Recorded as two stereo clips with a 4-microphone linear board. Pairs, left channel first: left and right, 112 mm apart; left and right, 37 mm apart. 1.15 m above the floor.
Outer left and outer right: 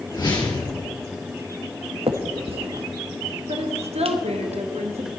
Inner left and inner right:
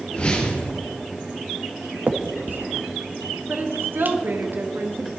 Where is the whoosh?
35° left (ahead or behind), 3.5 m.